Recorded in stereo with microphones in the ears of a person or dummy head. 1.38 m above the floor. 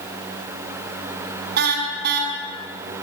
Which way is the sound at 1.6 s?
65° right (ahead or behind).